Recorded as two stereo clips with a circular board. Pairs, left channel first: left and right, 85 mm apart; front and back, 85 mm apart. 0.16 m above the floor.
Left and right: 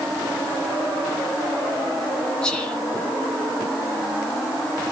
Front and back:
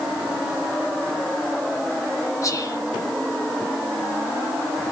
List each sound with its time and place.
2.4 s whispering: 10° left, 1.6 m